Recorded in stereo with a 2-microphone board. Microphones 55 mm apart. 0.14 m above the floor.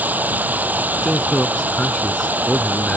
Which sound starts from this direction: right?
Running water, at 0.0 s.